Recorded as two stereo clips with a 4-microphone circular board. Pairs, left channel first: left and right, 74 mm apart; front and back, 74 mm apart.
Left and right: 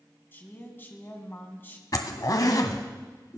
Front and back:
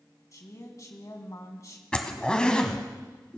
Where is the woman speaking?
30° left, 2 m.